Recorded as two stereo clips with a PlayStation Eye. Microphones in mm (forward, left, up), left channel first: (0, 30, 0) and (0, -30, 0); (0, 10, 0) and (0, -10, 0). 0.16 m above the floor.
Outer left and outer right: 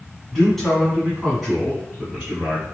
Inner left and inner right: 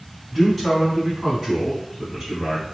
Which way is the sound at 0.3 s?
10° left (ahead or behind).